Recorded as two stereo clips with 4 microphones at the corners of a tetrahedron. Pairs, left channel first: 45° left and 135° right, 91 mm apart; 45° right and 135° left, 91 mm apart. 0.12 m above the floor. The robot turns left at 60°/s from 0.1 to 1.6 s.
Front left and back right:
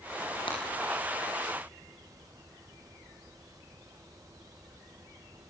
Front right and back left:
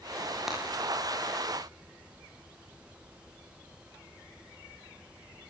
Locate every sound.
0.5 s breaking glass: 50° left, 10 m; by 0.6 s 45° left, 10 m